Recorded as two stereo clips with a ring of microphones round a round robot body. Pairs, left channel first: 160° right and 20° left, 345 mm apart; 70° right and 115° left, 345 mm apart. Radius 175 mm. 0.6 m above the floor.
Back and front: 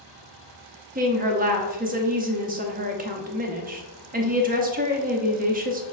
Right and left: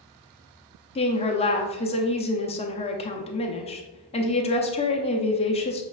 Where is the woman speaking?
15° right, 0.6 m.